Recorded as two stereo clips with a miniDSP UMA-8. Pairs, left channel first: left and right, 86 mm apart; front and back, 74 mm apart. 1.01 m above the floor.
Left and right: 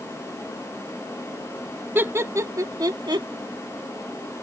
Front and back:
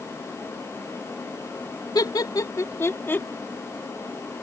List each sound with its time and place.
1.9 s laughter: 25° right; by 3.3 s 65° right